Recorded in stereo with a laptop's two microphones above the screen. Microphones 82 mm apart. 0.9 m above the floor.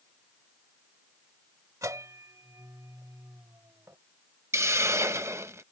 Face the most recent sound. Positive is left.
turn(degrees=-35)  # may be behind; listen again after turning